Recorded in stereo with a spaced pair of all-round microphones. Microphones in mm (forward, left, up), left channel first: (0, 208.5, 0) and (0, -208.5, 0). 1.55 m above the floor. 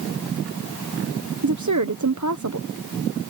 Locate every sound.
1.4 s a woman speaking: 45° right (ahead or behind)